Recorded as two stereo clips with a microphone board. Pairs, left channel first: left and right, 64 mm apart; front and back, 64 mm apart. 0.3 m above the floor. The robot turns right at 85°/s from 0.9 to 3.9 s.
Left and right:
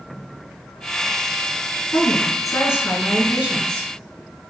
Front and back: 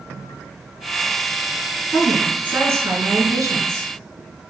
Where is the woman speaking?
65° left, 4 m; by 3.9 s 125° right, 4 m.